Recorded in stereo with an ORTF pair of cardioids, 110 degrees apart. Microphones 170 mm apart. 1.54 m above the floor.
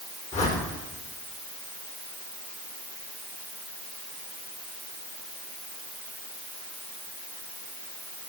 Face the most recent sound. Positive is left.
turn(degrees=40)